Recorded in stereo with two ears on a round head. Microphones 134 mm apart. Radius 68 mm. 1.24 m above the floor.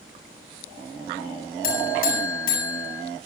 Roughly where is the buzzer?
Left.